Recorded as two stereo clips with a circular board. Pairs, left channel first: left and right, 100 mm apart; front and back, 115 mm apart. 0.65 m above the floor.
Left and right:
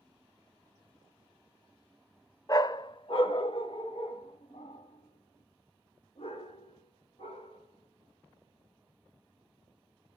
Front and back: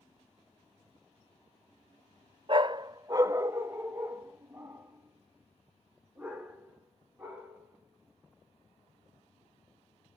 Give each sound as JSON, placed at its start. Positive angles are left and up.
{"t": 2.5, "sound": "a dog barking", "azimuth_deg": 140, "distance_m": 0.5}